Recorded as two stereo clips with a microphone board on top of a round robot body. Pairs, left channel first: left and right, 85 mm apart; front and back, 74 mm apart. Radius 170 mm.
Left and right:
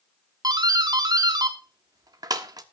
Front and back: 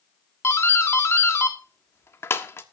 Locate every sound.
0.4 s a doorbell: 55° right, 1.6 m